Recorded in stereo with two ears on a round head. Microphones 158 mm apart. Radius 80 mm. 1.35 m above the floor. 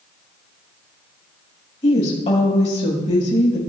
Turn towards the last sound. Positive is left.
turn(degrees=35)  # may be behind; listen again after turning